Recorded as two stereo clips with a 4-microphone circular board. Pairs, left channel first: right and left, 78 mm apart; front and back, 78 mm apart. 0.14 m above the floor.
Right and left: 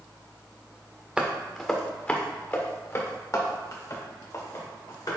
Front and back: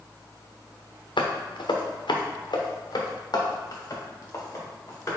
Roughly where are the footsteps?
Ahead.